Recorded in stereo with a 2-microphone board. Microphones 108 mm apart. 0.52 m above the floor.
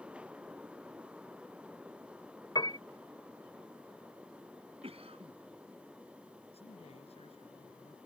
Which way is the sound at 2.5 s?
45° left (ahead or behind).